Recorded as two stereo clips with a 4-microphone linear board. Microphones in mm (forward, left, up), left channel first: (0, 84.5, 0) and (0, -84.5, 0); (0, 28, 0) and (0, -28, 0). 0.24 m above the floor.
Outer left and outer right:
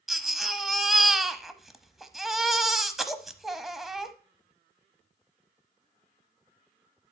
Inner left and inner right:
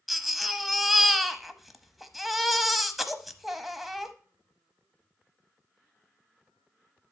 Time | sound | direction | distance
0.1 | a baby crying | centre (ahead or behind) | 0.8 m